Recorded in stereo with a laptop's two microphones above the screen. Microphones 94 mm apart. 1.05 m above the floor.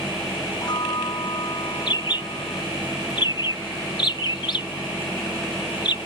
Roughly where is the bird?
Left.